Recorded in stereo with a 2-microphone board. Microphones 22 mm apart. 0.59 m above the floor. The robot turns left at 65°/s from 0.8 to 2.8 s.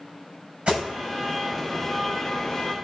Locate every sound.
0.7 s an alarm: 70° right (ahead or behind), 5 m; by 2.8 s 40° left (ahead or behind), 5 m